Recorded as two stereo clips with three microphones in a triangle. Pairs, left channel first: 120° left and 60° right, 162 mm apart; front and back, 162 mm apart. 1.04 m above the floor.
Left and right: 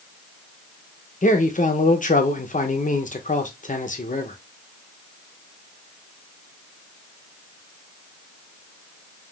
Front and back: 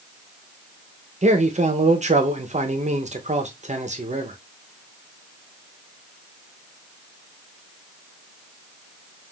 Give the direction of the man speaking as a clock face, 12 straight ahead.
7 o'clock.